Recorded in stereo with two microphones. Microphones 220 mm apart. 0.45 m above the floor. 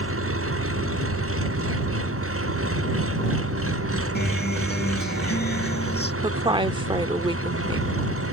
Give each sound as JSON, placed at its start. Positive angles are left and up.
{"t": 0.0, "sound": "an engine running", "side_deg": -70}
{"t": 4.2, "sound": "a guitar", "side_deg": 45}
{"t": 6.2, "sound": "a woman speaking", "side_deg": -20}